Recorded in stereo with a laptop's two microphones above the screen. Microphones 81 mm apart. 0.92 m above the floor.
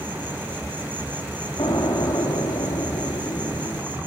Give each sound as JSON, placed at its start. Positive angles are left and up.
{"t": 0.0, "sound": "an insect", "side_deg": -20, "distance_m": 2.5}
{"t": 1.6, "sound": "an explosion", "side_deg": 50, "distance_m": 6.0}